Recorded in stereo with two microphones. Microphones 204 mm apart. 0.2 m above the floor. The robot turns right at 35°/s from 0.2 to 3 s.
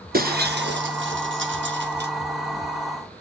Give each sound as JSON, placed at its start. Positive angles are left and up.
{"t": 0.1, "sound": "breaking glass", "side_deg": -45, "distance_m": 1.7}